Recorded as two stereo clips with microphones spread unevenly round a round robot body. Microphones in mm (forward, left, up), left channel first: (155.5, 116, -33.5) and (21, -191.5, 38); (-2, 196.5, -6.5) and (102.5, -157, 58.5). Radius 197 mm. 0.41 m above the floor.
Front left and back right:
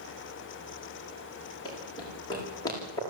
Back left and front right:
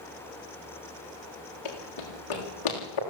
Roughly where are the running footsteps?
Behind left.